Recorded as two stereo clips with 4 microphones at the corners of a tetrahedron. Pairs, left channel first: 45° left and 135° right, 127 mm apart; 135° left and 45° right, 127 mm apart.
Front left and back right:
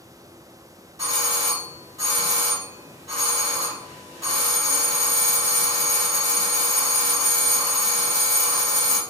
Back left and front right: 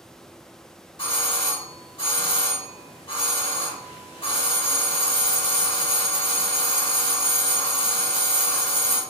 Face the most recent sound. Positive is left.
turn(degrees=165)